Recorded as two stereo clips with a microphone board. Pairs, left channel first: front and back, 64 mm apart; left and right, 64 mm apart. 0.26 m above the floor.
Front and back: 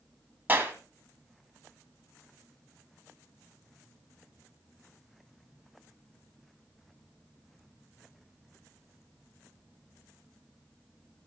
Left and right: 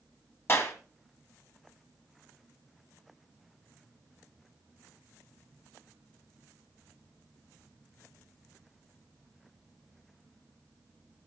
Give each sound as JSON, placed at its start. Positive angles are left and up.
{"t": 0.5, "sound": "a clap", "azimuth_deg": 130, "distance_m": 1.9}